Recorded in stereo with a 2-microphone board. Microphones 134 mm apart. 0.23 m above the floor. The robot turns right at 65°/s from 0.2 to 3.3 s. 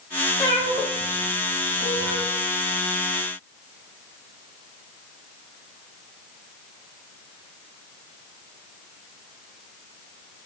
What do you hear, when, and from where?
0.4 s a cat meowing: 25° left (ahead or behind), 2.5 m; by 2.3 s 80° right, 2.5 m